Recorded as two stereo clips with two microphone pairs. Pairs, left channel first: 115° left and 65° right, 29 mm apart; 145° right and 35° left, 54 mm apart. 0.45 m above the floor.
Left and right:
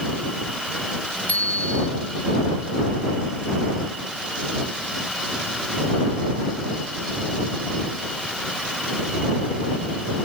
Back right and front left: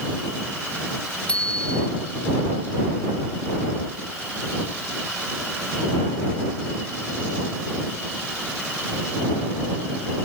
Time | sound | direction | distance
1.3 | a bicycle bell | 140° left | ?